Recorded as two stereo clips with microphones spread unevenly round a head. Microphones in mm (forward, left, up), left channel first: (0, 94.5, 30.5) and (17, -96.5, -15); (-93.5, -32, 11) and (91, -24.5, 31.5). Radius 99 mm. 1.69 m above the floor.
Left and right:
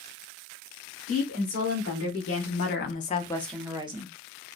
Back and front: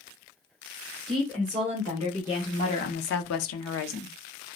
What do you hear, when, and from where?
1.1 s a woman speaking: 90° left, 1.4 m; by 4.1 s 150° right, 0.7 m